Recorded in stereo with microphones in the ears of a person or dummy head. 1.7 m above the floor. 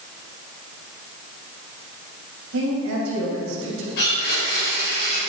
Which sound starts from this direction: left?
A blender, at 4.0 s.